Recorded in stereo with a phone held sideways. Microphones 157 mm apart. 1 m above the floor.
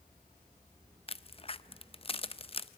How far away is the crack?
About 0.5 m.